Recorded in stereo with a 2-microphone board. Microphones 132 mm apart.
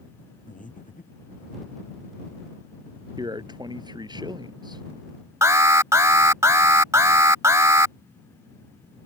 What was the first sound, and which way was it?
Breathing, 80° left.